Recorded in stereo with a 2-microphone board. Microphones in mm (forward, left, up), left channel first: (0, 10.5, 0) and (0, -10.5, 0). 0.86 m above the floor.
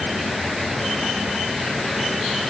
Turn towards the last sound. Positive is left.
No sound to turn to.